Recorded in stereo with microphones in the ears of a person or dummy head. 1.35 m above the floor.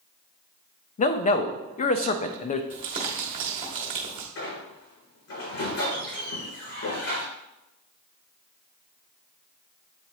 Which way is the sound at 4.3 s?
75° left (ahead or behind).